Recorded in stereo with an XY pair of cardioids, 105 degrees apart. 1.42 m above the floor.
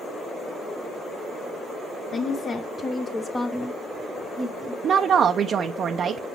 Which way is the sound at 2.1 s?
50° left.